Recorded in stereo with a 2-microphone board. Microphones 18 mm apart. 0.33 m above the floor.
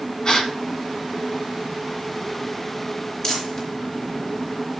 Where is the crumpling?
45° left (ahead or behind), 4.5 m.